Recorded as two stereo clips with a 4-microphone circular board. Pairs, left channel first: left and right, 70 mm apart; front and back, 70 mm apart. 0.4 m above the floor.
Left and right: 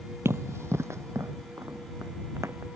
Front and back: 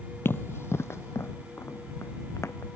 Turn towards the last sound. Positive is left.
turn(degrees=-45)